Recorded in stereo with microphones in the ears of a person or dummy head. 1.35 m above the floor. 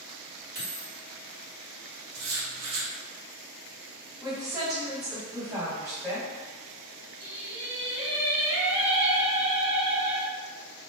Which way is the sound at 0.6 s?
30° right (ahead or behind).